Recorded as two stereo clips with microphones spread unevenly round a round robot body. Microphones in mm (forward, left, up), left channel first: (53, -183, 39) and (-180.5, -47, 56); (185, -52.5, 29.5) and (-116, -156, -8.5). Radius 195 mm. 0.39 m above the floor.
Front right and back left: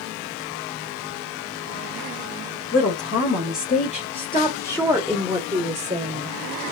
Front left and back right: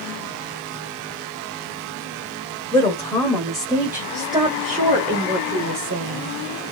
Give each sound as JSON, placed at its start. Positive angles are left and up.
{"t": 2.7, "sound": "a woman speaking", "azimuth_deg": -60, "distance_m": 1.8}